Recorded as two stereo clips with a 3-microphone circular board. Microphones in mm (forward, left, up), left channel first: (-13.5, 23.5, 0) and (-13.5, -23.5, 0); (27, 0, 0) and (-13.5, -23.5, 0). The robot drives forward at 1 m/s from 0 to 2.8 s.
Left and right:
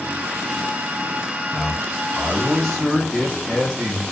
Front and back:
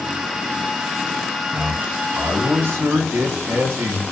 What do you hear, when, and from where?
1.5 s a man speaking: 170° left, 0.7 m; by 4.0 s 175° left, 1.9 m